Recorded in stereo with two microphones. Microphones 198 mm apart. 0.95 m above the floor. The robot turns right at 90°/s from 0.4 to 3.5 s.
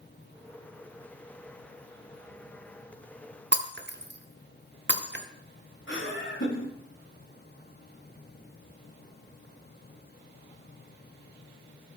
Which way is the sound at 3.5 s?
60° right (ahead or behind).